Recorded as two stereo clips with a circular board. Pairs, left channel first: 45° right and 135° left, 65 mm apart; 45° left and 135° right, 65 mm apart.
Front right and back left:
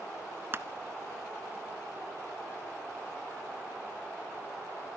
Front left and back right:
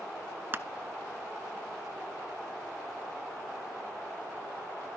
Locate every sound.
0.5 s crushing: straight behind, 0.6 m